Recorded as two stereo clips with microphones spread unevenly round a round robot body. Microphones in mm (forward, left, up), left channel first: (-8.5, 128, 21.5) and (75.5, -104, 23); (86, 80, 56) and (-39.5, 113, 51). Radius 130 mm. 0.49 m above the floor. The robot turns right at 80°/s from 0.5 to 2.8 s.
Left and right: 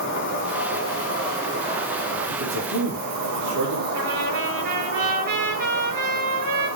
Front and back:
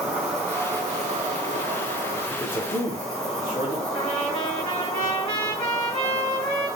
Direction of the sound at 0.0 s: 90° left.